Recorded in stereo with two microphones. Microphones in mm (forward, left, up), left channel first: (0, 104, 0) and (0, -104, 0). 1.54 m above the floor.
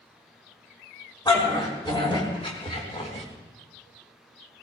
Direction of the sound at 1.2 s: 20° left (ahead or behind).